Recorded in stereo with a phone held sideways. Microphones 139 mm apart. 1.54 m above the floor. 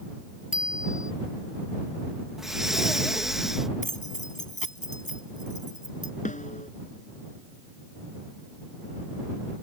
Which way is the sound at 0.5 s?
75° left (ahead or behind).